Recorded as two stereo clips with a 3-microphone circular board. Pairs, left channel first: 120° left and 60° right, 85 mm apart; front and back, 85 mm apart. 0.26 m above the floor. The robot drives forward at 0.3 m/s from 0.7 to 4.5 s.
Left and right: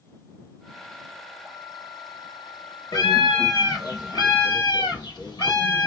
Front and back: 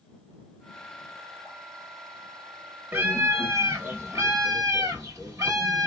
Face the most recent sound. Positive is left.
turn(degrees=135)